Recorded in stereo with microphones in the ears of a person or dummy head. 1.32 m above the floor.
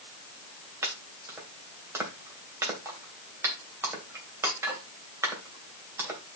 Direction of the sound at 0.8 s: 10° right (ahead or behind).